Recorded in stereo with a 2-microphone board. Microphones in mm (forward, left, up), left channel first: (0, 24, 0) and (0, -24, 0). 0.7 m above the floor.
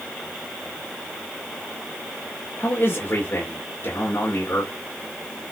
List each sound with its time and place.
2.6 s a man speaking: 50° left (ahead or behind), 2.5 m